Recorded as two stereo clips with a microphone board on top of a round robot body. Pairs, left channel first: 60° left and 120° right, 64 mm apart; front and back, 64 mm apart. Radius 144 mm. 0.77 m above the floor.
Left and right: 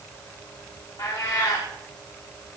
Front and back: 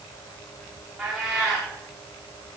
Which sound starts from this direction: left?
A cat meowing, at 1.0 s.